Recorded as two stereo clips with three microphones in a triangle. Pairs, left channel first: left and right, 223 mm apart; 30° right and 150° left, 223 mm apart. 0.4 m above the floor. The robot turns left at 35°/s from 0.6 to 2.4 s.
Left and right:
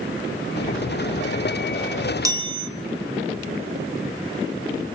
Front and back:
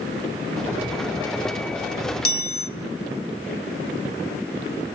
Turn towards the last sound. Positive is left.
turn(degrees=-20)